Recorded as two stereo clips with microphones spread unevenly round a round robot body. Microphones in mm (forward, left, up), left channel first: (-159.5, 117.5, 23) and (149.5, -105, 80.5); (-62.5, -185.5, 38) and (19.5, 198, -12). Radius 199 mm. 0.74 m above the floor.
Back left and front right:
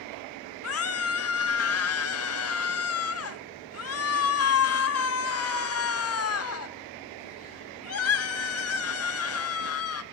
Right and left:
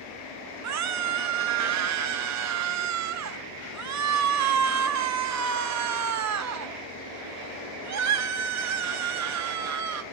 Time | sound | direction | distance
0.6 | a scream | 110° left | 1.5 m